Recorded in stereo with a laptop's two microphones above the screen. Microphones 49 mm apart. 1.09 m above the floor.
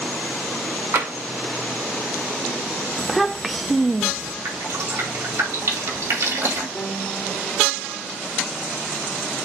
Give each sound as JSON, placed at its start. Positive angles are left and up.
{"t": 0.9, "sound": "tapping", "side_deg": -50, "distance_m": 2.0}
{"t": 3.0, "sound": "a child speaking", "side_deg": 0, "distance_m": 0.5}
{"t": 4.5, "sound": "dripping", "side_deg": -70, "distance_m": 2.5}
{"t": 6.8, "sound": "a piano", "side_deg": 20, "distance_m": 2.5}